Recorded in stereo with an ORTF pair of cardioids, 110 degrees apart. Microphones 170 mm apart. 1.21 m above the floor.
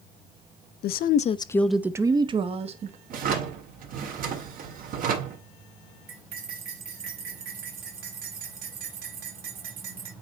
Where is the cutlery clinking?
60° right, 3 m.